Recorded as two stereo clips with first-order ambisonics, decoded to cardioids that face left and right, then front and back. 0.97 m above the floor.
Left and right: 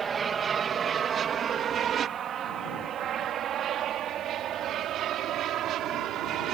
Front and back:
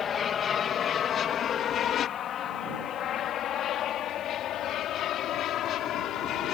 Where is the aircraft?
40° right; by 6.5 s 45° right.